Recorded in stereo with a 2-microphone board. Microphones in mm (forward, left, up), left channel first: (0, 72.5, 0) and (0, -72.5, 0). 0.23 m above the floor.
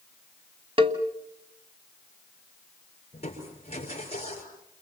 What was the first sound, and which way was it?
A cowbell, 40° right (ahead or behind).